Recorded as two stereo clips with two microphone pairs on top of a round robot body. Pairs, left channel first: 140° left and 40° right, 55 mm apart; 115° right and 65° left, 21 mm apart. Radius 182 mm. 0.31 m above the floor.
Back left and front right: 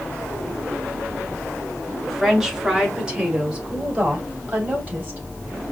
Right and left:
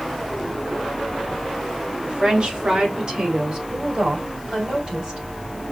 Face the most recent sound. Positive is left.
turn(degrees=20)